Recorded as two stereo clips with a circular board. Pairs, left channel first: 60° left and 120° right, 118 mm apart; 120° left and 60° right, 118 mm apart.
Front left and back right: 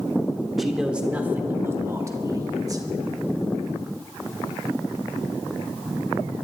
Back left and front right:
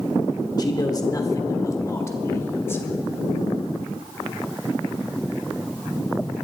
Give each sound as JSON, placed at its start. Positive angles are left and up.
{"t": 0.6, "sound": "a man speaking", "azimuth_deg": 150, "distance_m": 1.1}